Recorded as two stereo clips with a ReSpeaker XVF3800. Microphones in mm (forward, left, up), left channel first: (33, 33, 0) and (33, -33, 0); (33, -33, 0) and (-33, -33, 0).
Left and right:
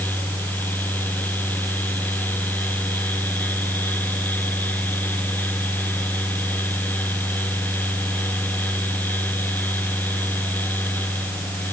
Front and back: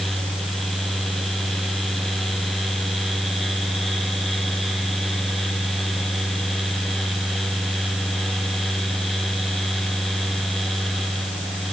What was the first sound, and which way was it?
Only background noise.